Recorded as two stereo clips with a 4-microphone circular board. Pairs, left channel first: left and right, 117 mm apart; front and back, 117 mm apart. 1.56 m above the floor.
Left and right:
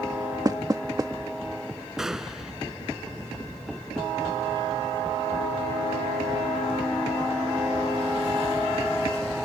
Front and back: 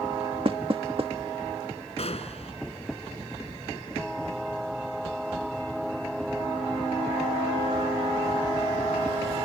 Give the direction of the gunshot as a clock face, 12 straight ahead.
12 o'clock.